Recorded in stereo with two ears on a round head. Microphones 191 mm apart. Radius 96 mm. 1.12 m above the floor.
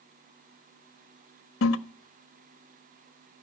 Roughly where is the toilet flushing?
Left.